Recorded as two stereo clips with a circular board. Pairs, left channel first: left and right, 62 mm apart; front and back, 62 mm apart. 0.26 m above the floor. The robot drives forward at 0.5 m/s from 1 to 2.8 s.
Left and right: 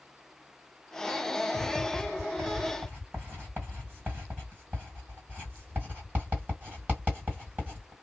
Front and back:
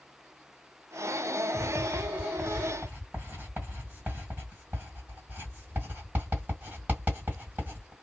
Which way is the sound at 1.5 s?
110° right.